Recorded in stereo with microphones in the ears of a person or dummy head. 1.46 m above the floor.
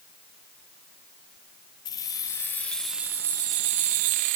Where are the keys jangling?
20° left (ahead or behind), 1.1 m; by 4.4 s 50° right (ahead or behind), 0.8 m.